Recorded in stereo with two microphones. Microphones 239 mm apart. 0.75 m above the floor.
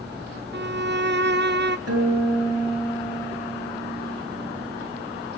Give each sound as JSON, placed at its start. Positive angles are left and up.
{"t": 0.5, "sound": "a violin", "side_deg": -45, "distance_m": 0.6}
{"t": 1.9, "sound": "a guitar", "side_deg": -85, "distance_m": 8.5}